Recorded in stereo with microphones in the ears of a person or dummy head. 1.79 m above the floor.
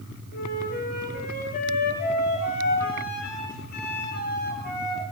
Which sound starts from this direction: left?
A flute, at 0.3 s.